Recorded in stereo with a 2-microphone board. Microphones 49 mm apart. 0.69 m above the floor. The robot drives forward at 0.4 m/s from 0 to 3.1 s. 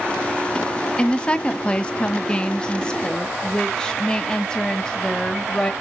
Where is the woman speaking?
20° left (ahead or behind), 0.6 m; by 5.7 s 15° left (ahead or behind), 0.8 m.